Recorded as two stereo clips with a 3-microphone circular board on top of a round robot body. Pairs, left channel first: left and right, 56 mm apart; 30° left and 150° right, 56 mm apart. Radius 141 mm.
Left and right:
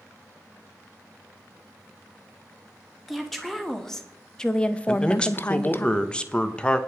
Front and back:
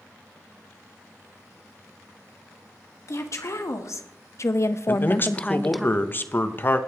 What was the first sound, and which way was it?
A woman speaking, 5° left.